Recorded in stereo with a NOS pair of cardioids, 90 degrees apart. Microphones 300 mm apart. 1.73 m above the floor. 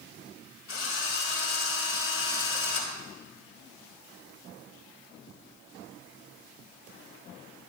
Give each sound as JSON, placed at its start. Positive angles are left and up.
{"t": 0.7, "sound": "a drill", "azimuth_deg": 45, "distance_m": 6.5}